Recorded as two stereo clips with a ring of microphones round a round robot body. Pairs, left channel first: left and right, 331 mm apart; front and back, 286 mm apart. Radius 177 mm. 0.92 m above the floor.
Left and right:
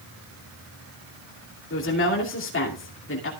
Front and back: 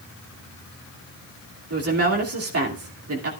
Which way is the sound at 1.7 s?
145° left.